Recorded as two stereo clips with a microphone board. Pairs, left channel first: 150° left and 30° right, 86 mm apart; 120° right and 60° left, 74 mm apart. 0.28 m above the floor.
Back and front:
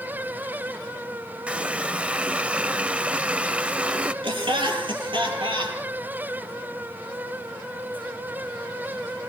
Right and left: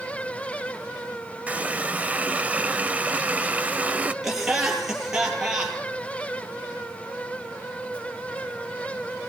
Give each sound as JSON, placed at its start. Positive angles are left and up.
{"t": 1.5, "sound": "a running tap", "azimuth_deg": 25, "distance_m": 0.6}
{"t": 4.2, "sound": "laughter", "azimuth_deg": -25, "distance_m": 7.5}